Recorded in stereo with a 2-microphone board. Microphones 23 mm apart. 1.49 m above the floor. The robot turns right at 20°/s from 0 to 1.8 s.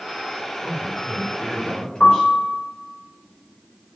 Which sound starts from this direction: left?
A piano, at 2.0 s.